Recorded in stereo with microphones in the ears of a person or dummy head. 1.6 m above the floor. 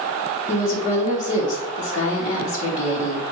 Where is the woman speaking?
40° left (ahead or behind), 1.6 m.